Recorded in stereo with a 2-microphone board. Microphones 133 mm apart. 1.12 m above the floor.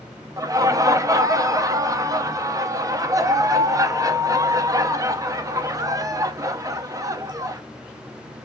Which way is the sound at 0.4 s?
25° right (ahead or behind).